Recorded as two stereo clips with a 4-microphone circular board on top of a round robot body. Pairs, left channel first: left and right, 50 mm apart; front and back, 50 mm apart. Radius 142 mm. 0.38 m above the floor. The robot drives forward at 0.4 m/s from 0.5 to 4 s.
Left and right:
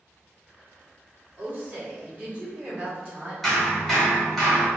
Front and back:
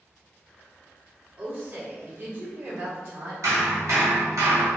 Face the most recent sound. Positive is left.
turn(degrees=180)